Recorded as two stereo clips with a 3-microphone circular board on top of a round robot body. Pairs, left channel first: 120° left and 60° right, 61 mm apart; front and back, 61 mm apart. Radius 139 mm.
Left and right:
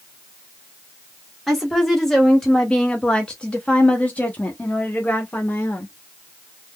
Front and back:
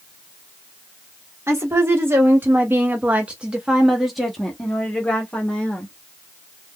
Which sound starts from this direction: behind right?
A woman speaking, at 1.5 s.